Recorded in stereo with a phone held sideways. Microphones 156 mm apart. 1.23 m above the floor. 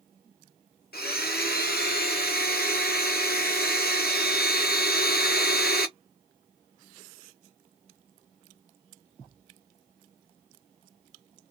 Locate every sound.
0.9 s a blender: 80° left, 0.7 m